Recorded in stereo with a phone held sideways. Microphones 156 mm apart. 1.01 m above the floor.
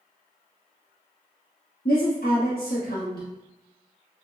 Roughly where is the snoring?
No snoring in this recording.